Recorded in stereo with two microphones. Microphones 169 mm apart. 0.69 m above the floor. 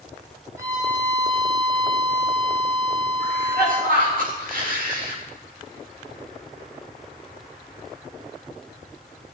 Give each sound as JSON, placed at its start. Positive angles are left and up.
{"t": 0.6, "sound": "a violin", "side_deg": -20, "distance_m": 2.5}
{"t": 3.2, "sound": "a cough", "side_deg": -55, "distance_m": 3.5}